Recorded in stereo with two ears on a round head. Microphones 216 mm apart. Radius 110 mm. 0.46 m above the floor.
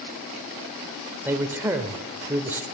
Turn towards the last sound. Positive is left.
turn(degrees=-10)  # may be behind; listen again after turning